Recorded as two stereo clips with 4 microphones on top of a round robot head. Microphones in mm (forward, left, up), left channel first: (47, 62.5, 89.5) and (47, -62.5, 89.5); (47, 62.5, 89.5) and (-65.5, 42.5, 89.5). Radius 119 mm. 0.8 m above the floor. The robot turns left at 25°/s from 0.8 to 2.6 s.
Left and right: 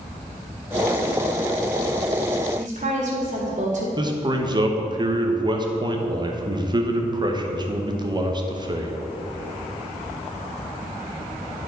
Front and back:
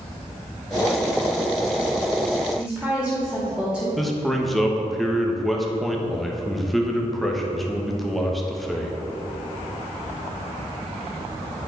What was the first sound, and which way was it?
A woman speaking, 80° right.